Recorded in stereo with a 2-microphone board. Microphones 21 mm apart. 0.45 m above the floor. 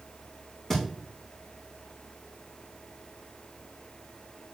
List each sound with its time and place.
0.7 s a thud: 30° left (ahead or behind), 2.5 m